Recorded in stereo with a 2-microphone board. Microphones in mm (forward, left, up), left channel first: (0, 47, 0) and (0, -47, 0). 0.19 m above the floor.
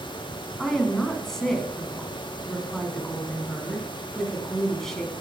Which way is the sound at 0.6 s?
5° left (ahead or behind).